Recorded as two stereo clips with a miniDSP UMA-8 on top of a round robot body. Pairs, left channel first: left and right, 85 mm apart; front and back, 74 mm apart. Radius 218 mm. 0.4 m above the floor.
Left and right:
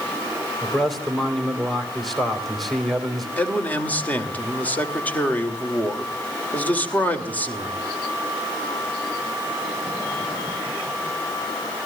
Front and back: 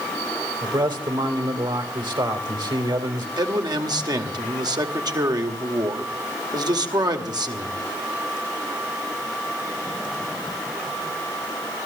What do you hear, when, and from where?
0.6 s a man speaking: straight behind, 3 m
3.4 s a man speaking: 160° left, 2.5 m